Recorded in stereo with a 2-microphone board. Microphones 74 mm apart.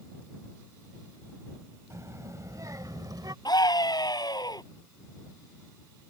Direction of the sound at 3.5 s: 65° left (ahead or behind).